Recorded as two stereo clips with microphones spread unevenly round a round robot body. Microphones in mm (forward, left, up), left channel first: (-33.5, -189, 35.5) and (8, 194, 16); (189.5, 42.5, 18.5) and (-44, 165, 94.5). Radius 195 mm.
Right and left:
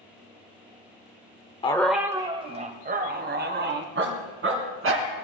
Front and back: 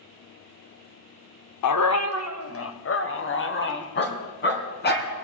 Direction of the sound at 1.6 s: 20° right.